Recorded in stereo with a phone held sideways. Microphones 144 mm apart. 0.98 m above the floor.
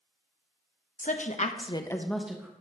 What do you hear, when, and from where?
1.0 s a woman speaking: 65° left (ahead or behind), 1.0 m; by 2.5 s 10° right (ahead or behind), 1.1 m